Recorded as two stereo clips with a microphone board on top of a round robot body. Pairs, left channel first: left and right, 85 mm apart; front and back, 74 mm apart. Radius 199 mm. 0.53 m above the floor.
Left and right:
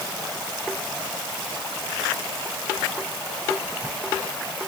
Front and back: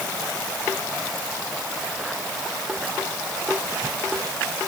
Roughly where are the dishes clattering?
No dishes clattering in this recording.